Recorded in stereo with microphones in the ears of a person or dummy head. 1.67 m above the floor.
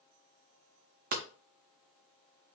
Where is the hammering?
45° right (ahead or behind), 0.6 m.